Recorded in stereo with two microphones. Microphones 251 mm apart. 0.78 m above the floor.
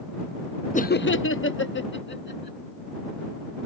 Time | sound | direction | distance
0.7 | laughter | 30° left (ahead or behind) | ?